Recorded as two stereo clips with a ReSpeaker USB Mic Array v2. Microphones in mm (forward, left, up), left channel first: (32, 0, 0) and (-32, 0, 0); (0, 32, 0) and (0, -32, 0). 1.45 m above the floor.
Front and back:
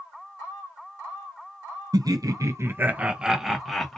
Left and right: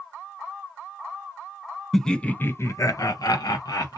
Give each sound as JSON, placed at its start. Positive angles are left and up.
{"t": 1.9, "sound": "laughter", "azimuth_deg": 175, "distance_m": 0.6}